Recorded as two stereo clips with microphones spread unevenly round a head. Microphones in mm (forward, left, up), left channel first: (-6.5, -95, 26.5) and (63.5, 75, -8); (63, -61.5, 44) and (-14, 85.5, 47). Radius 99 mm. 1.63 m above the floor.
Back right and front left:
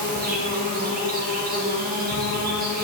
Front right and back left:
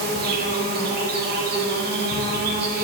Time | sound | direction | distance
0.0 | an insect | 110° left | 2 m